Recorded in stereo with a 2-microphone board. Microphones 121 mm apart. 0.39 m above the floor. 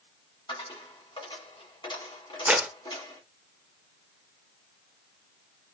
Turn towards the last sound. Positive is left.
turn(degrees=-10)  # may be behind; listen again after turning